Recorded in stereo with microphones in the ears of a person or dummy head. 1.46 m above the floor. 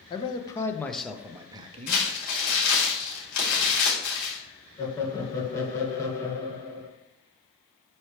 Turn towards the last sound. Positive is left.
turn(degrees=15)  # may be behind; listen again after turning